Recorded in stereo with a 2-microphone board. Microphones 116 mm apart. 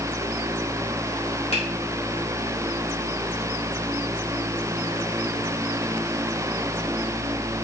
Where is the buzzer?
I don't hear a buzzer.